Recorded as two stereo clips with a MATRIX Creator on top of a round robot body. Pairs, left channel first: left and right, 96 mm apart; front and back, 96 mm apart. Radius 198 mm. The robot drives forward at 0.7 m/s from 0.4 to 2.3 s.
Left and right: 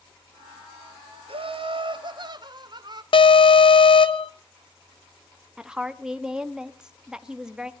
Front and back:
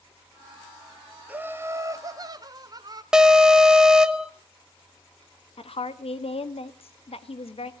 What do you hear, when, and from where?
1.3 s laughter: 105° right, 1.3 m; by 3.0 s 130° right, 1.7 m
3.1 s an alarm: 95° left, 1.3 m
5.6 s a woman speaking: 10° right, 1.5 m